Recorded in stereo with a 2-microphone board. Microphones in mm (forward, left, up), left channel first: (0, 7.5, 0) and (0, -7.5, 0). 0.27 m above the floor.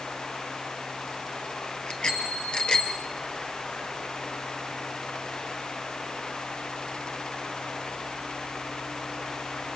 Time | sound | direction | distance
1.9 | a bicycle bell | 60° left (ahead or behind) | 4 m